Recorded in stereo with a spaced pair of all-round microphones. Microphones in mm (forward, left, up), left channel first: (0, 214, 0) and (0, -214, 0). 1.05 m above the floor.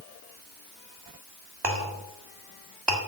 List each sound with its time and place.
1.6 s a clink: 65° right (ahead or behind), 1.9 m